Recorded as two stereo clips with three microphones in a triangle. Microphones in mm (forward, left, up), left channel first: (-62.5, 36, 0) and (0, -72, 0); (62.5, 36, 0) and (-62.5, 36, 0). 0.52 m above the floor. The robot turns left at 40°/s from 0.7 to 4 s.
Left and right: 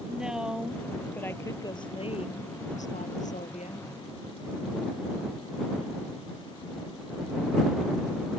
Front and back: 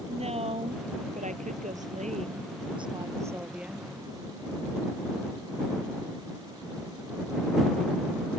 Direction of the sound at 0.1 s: 145° right.